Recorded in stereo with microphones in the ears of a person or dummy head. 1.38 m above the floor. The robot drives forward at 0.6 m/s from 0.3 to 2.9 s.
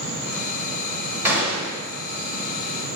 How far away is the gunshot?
About 1.6 m.